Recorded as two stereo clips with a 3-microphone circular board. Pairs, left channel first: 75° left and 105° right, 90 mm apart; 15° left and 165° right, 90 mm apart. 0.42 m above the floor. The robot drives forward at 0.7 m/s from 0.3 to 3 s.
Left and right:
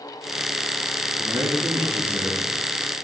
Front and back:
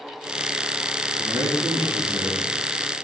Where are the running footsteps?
No running footsteps in this recording.